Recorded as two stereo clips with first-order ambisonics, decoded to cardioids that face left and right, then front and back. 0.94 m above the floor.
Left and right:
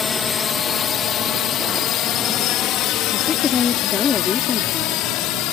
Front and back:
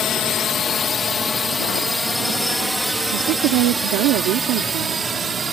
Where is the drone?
30° left; by 5.5 s 110° left.